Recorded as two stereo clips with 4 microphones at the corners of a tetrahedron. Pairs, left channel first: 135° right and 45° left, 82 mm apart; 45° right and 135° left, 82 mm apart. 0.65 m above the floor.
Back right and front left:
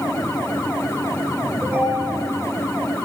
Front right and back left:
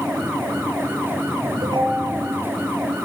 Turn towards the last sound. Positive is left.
turn(degrees=115)